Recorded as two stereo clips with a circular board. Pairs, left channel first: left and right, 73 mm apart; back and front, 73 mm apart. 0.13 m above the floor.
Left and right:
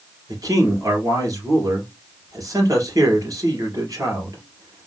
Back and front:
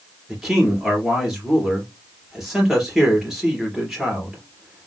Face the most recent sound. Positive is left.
turn(degrees=-85)